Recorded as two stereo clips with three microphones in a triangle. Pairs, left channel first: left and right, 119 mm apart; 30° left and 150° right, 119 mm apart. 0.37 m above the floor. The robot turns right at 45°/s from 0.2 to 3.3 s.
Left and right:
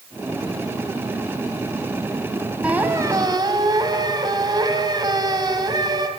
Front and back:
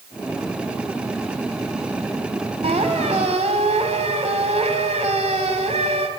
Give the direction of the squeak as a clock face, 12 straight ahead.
6 o'clock.